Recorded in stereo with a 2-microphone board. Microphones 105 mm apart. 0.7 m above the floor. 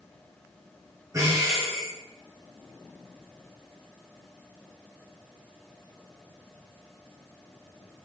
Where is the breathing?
30° right (ahead or behind), 4 m.